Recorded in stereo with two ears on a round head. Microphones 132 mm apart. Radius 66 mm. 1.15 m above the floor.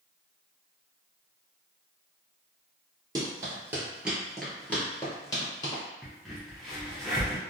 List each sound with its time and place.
3.1 s running footsteps: 25° right (ahead or behind), 1.2 m; by 5.8 s 30° left (ahead or behind), 1.4 m
6.0 s a crack: centre (ahead or behind), 0.8 m